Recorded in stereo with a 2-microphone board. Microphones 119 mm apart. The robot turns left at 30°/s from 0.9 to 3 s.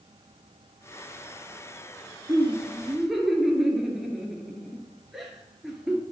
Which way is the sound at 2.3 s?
15° right (ahead or behind).